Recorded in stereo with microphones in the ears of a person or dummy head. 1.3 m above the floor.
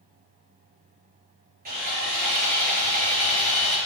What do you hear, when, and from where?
1.6 s sawing: 45° right (ahead or behind), 4 m